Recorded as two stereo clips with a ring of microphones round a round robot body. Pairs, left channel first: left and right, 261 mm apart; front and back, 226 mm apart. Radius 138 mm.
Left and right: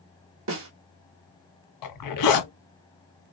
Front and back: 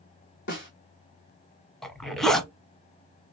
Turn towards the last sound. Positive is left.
turn(degrees=90)